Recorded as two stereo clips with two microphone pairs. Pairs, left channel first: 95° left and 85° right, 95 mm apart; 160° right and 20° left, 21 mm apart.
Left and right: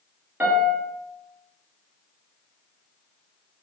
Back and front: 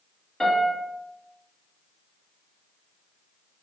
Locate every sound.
0.4 s a piano: 140° right, 0.9 m